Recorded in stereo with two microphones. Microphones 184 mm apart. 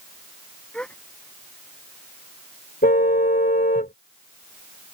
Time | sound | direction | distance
0.7 | a gasp | 5° left (ahead or behind) | ?
2.8 | a car horn | 50° left (ahead or behind) | ?